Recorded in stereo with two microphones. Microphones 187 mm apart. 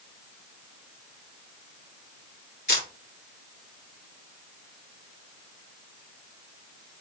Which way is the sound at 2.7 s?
60° left (ahead or behind).